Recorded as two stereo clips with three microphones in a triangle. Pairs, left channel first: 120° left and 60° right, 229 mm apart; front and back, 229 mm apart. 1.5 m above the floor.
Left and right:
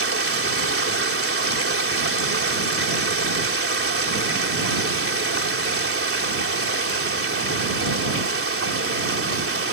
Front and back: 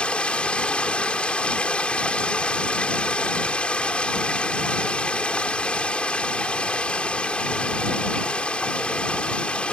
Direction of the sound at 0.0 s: 85° right.